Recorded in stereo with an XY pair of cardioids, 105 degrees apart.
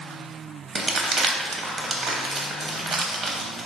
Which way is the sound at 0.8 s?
45° right.